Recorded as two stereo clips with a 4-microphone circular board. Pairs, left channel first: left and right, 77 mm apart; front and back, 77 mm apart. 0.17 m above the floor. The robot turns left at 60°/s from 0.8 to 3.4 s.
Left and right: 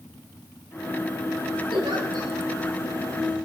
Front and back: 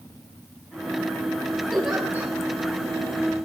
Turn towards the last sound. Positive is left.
turn(degrees=170)